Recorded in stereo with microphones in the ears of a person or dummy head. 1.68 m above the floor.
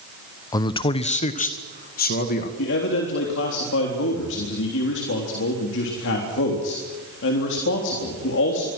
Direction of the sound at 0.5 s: 20° left (ahead or behind).